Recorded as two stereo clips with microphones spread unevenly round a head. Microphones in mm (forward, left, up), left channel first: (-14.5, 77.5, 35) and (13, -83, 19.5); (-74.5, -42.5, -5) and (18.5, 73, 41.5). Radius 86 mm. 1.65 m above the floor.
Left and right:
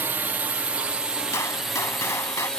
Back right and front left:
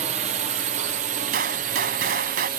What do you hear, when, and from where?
0.0 s a drone: 5° right; by 2.6 s 10° left
1.3 s a gunshot: 30° left